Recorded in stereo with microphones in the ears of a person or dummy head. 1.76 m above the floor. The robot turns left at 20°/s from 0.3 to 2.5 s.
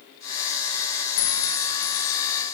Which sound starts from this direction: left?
A clink, at 1.2 s.